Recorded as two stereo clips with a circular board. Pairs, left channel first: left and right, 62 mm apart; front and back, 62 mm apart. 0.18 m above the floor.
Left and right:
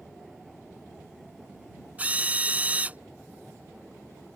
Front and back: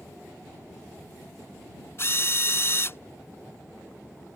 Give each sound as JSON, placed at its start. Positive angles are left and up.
{"t": 2.0, "sound": "a drill", "azimuth_deg": -35}